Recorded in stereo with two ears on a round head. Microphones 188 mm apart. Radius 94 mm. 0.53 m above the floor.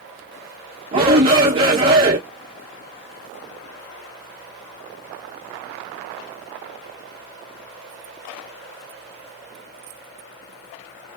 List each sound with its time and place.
0.9 s a shout: 25° right (ahead or behind), 0.7 m